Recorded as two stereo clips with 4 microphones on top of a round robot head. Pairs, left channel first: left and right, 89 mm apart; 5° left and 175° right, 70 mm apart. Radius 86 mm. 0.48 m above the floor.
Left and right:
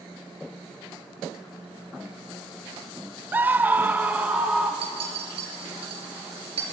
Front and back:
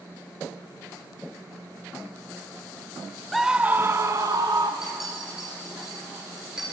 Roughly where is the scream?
Right.